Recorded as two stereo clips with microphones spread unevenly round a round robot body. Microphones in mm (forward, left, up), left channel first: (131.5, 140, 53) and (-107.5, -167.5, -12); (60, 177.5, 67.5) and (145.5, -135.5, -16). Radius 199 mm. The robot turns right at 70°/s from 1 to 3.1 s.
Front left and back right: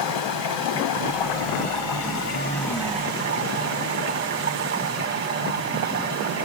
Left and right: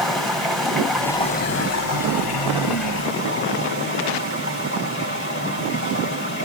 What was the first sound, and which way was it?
Running water, 15° left.